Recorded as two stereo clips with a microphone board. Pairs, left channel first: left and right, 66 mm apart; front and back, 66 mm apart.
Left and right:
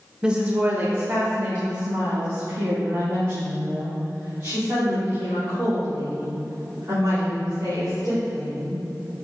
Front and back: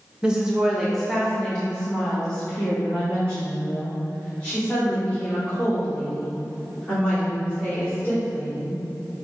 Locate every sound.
0.2 s a woman speaking: 135° right, 0.8 m; by 8.8 s 60° right, 5.5 m